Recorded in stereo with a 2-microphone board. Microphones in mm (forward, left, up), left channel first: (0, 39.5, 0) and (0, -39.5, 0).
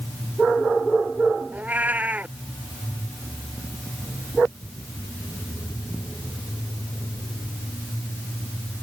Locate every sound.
1.5 s a cat meowing: 20° right (ahead or behind)